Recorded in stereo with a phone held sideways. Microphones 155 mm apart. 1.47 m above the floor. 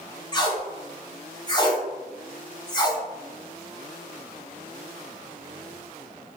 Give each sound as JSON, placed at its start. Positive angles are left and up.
{"t": 0.3, "sound": "tape being pulled", "side_deg": 25, "distance_m": 0.7}